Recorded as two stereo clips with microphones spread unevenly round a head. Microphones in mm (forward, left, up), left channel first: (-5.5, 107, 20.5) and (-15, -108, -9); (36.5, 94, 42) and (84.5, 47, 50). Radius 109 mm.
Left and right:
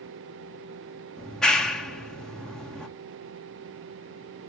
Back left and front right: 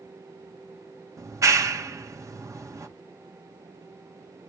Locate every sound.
1.2 s a clap: 5° right, 1.7 m